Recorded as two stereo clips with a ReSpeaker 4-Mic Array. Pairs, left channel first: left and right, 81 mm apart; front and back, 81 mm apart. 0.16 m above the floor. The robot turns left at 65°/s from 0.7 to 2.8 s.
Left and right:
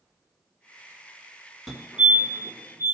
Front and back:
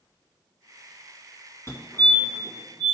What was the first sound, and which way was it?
A fire alarm, 5° left.